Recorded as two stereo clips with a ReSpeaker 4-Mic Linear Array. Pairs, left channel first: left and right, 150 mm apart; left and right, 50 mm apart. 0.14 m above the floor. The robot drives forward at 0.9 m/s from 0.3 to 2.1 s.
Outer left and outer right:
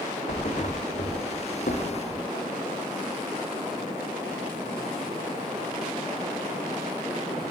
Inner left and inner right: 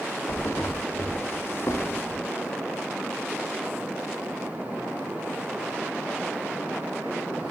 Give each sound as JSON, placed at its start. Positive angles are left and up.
{"t": 0.3, "sound": "a thud", "side_deg": 50, "distance_m": 2.0}